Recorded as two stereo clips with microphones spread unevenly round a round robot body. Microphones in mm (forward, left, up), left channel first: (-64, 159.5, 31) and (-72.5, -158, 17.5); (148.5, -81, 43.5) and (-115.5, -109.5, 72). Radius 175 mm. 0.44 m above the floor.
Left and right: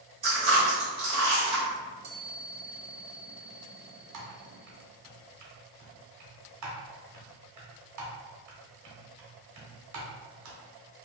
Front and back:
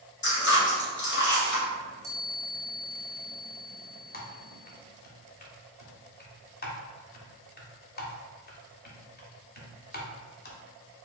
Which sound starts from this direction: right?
A chime, at 1.7 s.